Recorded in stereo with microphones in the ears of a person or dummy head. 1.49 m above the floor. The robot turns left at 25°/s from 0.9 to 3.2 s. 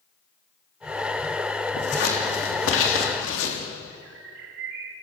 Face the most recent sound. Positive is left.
turn(degrees=-75)  # may be behind; listen again after turning